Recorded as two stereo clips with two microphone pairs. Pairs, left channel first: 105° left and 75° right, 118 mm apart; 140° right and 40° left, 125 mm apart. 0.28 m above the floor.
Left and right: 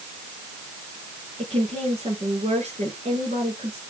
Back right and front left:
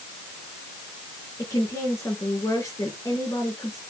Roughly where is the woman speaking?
Right.